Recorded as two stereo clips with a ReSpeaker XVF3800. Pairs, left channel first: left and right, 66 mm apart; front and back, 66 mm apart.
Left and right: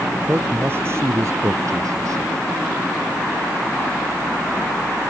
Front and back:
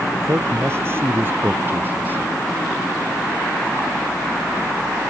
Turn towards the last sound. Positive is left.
turn(degrees=-120)